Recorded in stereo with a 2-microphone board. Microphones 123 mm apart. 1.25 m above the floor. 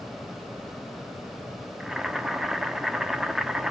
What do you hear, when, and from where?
1.8 s boiling: 5° right (ahead or behind), 1.1 m